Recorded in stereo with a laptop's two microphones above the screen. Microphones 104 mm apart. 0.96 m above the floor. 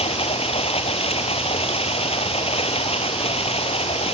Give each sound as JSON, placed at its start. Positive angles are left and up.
{"t": 0.0, "sound": "running water", "side_deg": 70}